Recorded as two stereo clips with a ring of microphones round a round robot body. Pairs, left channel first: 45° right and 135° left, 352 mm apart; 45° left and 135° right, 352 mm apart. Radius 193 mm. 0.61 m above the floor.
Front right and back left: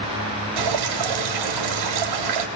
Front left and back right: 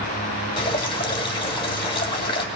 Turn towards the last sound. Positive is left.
turn(degrees=120)